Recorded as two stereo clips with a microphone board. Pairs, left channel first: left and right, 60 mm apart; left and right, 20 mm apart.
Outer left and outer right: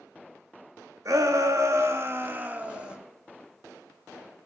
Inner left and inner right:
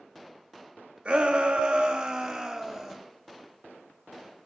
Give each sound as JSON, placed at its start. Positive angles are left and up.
{"t": 1.1, "sound": "a shout", "side_deg": -65, "distance_m": 1.5}